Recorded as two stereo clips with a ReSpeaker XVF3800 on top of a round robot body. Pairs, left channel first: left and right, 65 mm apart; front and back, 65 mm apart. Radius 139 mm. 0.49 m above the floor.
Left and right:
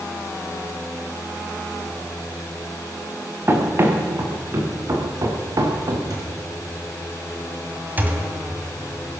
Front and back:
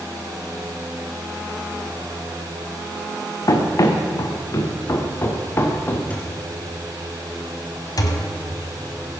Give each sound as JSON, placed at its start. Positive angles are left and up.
{"t": 3.5, "sound": "running footsteps", "azimuth_deg": -30, "distance_m": 3.5}
{"t": 6.1, "sound": "a thud", "azimuth_deg": -65, "distance_m": 3.0}
{"t": 8.0, "sound": "a thud", "azimuth_deg": -25, "distance_m": 1.7}